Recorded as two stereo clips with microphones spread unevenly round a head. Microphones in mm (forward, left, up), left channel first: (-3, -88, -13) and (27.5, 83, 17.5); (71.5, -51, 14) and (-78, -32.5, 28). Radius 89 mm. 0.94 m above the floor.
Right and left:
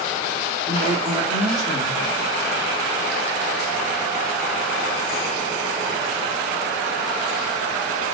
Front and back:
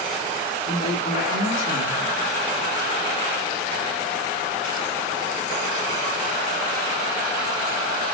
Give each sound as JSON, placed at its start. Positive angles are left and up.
{"t": 0.7, "sound": "a woman speaking", "azimuth_deg": 10, "distance_m": 1.5}